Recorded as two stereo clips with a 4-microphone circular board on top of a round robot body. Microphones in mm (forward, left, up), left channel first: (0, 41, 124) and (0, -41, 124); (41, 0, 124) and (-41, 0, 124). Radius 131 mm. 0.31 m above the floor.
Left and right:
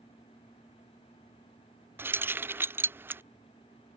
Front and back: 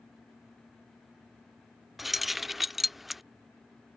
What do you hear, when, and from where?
2.0 s keys jangling: 95° right